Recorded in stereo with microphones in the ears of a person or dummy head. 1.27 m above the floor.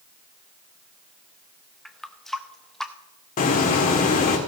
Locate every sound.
1.9 s a running tap: centre (ahead or behind), 0.7 m
3.4 s a hiss: 40° left (ahead or behind), 1.7 m